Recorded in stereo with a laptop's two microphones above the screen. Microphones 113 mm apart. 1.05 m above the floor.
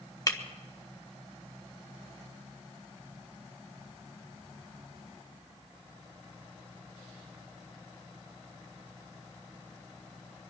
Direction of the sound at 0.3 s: 30° left (ahead or behind).